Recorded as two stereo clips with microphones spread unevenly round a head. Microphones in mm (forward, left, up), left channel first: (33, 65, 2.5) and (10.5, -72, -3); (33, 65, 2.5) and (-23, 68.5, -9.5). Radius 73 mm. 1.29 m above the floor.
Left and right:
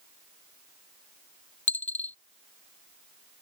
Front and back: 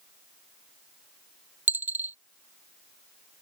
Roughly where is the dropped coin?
Behind left.